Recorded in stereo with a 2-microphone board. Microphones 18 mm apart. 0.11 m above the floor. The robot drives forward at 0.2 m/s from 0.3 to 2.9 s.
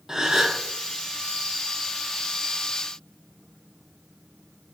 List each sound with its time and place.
0.1 s a gasp: 25° right (ahead or behind), 0.6 m; by 0.6 s 30° right (ahead or behind), 0.5 m